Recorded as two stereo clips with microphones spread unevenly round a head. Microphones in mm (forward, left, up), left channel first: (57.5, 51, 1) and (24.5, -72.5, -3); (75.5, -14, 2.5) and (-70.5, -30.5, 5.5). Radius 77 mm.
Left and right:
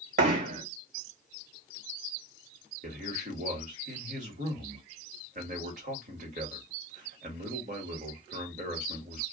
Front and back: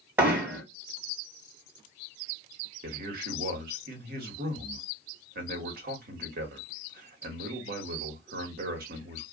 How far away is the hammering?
About 1.6 m.